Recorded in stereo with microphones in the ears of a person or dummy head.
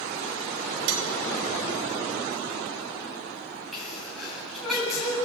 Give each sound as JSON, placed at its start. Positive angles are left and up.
{"t": 0.9, "sound": "cutlery clinking", "side_deg": -70, "distance_m": 2.5}
{"t": 3.7, "sound": "a sneeze", "side_deg": 0, "distance_m": 8.5}